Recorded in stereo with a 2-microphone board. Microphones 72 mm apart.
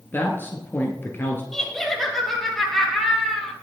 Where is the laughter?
5° left (ahead or behind), 3.5 m.